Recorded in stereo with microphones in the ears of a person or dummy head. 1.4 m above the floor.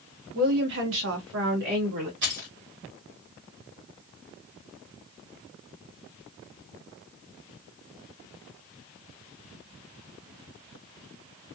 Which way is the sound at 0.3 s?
50° right (ahead or behind).